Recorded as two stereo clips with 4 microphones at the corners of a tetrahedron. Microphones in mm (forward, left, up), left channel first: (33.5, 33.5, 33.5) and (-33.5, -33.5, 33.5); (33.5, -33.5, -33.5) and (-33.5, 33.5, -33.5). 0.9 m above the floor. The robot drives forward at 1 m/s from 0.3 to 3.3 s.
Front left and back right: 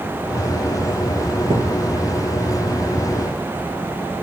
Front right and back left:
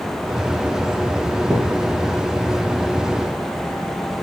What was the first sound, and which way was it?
A thud, 140° right.